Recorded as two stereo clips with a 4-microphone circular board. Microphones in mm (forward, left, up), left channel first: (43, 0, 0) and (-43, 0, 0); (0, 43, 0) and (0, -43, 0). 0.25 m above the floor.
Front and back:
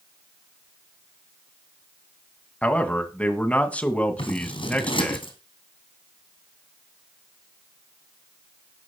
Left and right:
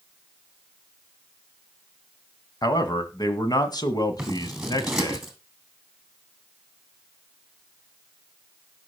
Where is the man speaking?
70° left, 1.9 m.